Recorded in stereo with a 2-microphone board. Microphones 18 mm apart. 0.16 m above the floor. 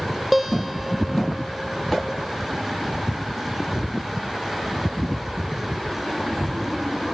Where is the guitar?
Centre (ahead or behind), 3 m.